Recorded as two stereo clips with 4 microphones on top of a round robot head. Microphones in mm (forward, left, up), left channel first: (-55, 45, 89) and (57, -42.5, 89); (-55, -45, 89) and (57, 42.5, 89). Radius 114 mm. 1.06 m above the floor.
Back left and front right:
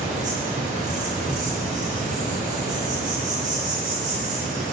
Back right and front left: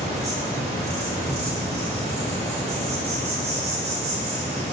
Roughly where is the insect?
Ahead.